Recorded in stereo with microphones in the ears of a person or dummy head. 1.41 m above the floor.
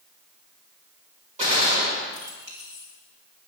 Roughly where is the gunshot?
Right.